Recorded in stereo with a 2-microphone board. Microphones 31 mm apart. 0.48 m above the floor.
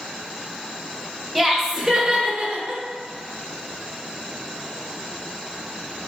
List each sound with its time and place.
1.4 s laughter: centre (ahead or behind), 1.2 m; by 2.8 s 50° right (ahead or behind), 1.9 m